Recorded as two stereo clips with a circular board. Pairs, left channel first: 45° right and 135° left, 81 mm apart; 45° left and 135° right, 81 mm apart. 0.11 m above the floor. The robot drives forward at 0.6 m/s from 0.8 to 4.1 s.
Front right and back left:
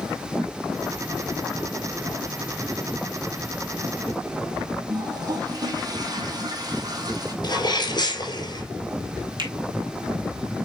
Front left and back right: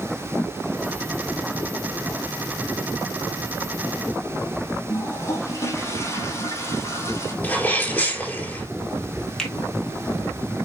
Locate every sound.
4.9 s a toilet flushing: 100° left, 2.0 m
7.4 s a sneeze: 20° right, 4.5 m
9.4 s a finger snap: 125° left, 2.5 m